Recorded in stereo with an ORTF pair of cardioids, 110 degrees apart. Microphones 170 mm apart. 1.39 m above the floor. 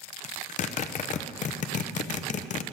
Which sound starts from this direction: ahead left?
A zipper, at 0.2 s.